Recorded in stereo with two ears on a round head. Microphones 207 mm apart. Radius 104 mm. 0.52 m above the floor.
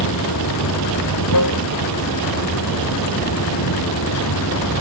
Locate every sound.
0.0 s running water: 90° left